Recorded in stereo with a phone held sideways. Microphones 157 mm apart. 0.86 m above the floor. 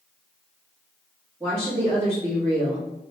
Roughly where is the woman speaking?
Centre.